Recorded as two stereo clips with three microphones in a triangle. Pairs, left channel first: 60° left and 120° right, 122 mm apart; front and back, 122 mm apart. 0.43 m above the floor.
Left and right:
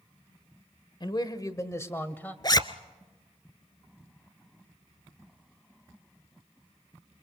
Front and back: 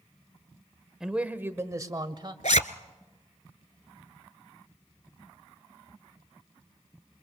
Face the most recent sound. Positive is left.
turn(degrees=5)